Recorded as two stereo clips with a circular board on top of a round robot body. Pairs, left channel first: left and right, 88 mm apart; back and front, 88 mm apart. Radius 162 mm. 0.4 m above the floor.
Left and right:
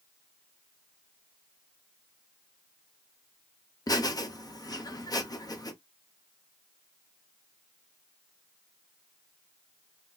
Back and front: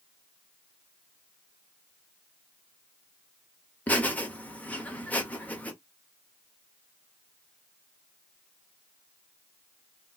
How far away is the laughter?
About 1.2 m.